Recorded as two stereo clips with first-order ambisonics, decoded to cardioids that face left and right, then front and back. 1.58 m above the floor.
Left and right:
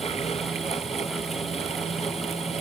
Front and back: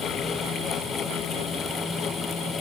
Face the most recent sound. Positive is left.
No sound to turn to.